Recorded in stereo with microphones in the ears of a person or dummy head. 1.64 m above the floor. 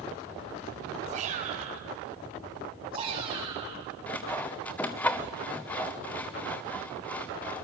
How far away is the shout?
About 7 m.